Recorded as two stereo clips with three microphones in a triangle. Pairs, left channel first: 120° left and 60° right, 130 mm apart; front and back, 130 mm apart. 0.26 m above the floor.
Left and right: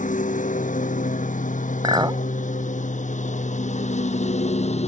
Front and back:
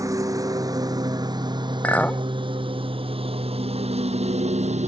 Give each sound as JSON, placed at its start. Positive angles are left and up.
{"t": 0.0, "sound": "a lawn mower", "azimuth_deg": 115}
{"t": 1.8, "sound": "a clink", "azimuth_deg": -70}